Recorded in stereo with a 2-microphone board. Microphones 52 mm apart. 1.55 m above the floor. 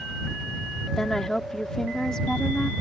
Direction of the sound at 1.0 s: 15° left (ahead or behind).